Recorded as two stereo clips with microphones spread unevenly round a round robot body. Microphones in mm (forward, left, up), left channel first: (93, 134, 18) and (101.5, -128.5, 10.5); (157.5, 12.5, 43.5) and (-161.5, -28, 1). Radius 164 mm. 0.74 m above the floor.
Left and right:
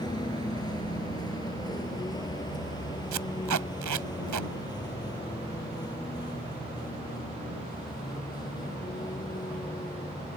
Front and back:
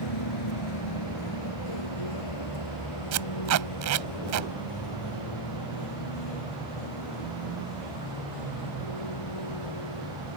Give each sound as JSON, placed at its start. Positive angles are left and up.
{"t": 0.0, "sound": "a vehicle", "azimuth_deg": 20}
{"t": 3.1, "sound": "tape being pulled", "azimuth_deg": -130}